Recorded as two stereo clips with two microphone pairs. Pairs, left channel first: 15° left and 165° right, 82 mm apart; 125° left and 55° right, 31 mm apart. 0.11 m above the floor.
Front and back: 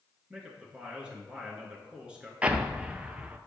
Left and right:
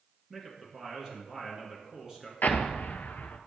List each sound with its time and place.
0.3 s a man speaking: 100° right, 1.6 m
2.4 s an explosion: 125° left, 0.5 m